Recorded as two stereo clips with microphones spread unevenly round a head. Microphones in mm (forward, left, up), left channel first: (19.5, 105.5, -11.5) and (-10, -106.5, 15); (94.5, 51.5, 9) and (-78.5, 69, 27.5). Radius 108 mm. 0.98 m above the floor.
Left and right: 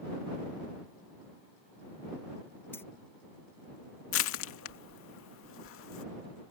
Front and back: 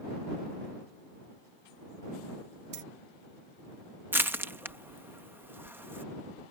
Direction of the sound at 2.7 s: 165° left.